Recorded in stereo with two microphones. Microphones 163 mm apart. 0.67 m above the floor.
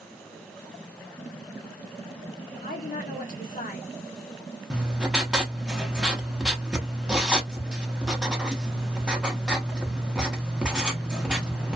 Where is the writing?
5° right (ahead or behind), 0.6 m.